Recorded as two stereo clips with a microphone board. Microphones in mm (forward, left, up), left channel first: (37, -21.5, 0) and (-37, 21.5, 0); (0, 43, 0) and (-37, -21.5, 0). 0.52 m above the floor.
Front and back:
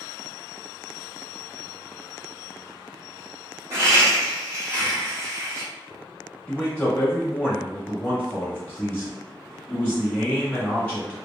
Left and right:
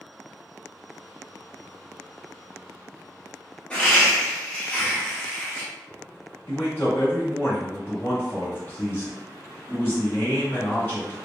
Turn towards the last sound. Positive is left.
turn(degrees=30)